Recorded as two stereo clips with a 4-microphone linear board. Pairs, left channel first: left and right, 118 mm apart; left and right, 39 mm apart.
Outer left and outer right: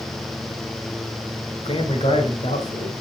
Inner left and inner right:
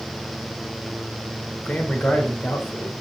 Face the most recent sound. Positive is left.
turn(degrees=65)  # may be behind; listen again after turning